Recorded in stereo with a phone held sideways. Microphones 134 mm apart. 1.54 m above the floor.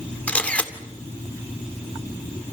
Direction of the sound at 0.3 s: 10° left (ahead or behind).